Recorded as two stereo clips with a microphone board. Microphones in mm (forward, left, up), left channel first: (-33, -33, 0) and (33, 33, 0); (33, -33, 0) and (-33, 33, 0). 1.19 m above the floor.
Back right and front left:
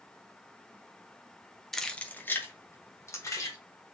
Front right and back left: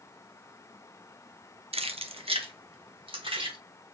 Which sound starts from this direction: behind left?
Keys jangling, at 1.7 s.